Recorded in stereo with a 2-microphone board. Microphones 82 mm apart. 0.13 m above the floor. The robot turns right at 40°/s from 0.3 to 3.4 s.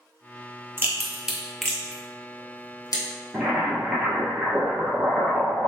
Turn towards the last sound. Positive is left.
turn(degrees=-10)  # may be behind; listen again after turning